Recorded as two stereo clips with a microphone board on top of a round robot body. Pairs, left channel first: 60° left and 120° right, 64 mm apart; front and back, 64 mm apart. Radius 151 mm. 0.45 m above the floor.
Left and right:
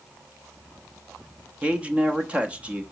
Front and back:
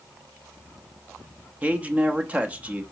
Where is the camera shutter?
I don't hear a camera shutter.